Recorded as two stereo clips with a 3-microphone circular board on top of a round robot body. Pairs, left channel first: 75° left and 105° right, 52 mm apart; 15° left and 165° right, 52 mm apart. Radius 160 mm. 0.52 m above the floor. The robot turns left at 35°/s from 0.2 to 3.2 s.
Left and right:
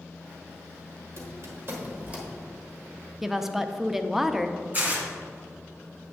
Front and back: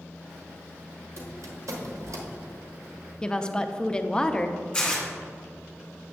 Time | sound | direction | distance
1.2 | a squeak | 135° right | 1.2 m
3.2 | a woman speaking | 30° right | 0.6 m
4.7 | tearing paper | 60° right | 2 m